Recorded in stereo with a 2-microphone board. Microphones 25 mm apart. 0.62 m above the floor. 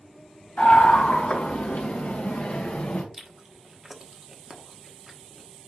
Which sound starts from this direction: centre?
Chewing, at 3.1 s.